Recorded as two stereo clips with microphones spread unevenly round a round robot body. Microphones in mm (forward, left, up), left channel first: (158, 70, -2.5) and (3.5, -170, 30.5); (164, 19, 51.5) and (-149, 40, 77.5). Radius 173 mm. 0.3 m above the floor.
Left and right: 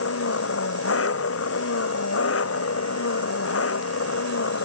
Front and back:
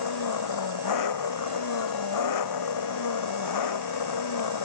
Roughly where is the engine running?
Ahead.